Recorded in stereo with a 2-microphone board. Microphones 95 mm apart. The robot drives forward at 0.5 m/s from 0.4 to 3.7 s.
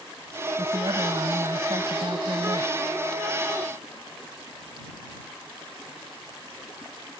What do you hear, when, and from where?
0.6 s a woman speaking: 50° right (ahead or behind); by 2.7 s 60° right (ahead or behind)